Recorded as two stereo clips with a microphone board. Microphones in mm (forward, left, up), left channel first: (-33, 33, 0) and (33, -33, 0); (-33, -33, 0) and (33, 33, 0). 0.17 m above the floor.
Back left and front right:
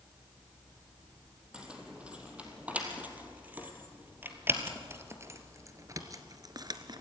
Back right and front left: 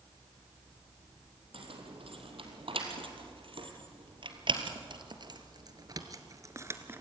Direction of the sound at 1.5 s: 35° left.